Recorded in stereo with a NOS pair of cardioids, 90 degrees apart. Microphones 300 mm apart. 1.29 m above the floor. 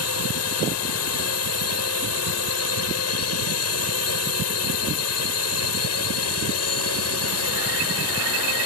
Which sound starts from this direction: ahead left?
A drone, at 0.0 s.